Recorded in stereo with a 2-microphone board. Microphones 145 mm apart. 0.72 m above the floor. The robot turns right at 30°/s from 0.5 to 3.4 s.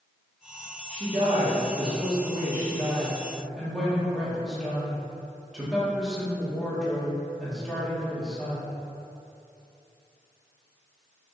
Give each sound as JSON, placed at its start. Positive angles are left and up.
{"t": 0.9, "sound": "a woman speaking", "azimuth_deg": -75, "distance_m": 1.3}